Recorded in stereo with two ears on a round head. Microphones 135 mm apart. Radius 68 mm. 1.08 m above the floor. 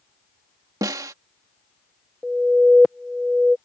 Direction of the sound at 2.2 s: Centre (ahead or behind).